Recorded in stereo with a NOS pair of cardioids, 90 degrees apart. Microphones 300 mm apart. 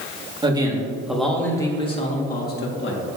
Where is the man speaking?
15° right, 2.0 m; by 3.0 s 45° left, 2 m.